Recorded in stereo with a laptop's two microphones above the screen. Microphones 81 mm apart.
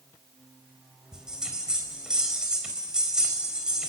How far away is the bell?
About 4 m.